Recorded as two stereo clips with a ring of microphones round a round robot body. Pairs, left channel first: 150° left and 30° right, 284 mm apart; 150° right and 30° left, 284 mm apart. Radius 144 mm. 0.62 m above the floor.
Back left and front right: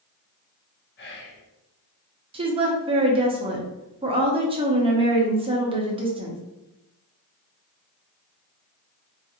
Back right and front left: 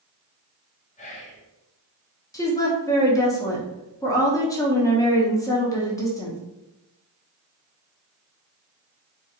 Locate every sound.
1.0 s whispering: 160° left, 0.9 m
2.3 s a woman speaking: 85° right, 0.8 m